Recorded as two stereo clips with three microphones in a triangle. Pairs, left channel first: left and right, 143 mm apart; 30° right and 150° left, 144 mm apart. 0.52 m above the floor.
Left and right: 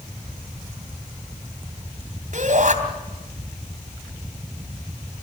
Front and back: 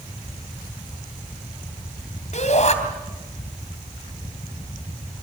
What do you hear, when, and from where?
2.3 s a shout: 65° right, 3 m